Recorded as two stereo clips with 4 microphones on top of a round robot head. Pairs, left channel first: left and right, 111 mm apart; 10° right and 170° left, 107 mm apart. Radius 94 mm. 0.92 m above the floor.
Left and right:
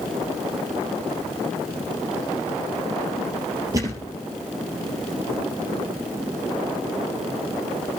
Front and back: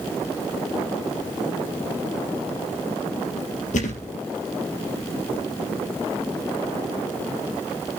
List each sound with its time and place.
3.7 s a thud: 20° right, 3 m